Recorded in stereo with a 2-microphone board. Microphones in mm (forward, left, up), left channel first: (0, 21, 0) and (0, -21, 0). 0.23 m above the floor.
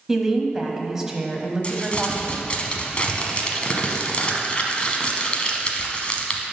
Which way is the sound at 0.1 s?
15° right (ahead or behind).